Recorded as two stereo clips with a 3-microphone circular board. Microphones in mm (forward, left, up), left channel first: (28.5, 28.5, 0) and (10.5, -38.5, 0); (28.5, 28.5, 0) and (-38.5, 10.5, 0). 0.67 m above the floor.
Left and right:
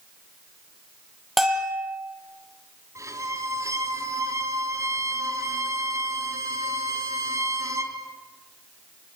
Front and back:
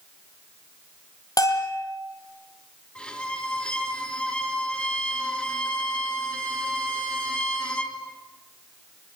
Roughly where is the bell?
Ahead.